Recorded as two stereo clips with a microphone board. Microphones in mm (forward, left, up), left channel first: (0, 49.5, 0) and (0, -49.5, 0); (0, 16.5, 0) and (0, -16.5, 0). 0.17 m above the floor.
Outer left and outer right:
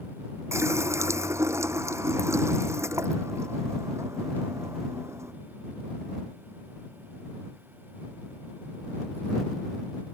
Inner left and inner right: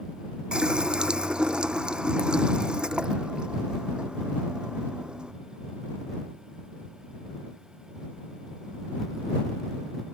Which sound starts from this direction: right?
A running tap, at 0.5 s.